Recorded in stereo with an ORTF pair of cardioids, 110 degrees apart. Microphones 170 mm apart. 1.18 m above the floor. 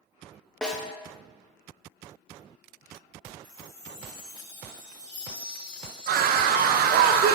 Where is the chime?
30° left, 2.5 m.